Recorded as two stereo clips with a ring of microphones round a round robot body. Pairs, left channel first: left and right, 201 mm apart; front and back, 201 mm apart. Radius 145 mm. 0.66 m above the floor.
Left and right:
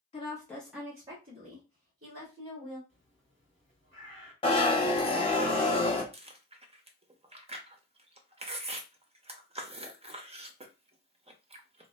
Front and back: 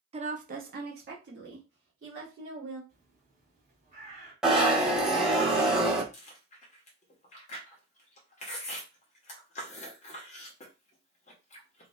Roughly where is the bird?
Behind right.